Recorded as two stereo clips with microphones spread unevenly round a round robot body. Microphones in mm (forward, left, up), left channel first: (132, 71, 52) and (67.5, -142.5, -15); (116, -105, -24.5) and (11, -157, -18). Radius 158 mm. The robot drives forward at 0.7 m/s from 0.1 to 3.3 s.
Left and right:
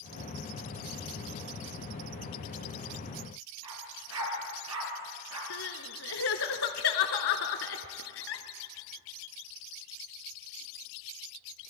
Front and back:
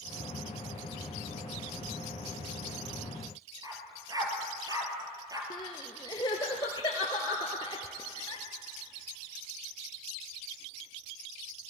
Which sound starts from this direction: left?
Crying, at 5.5 s.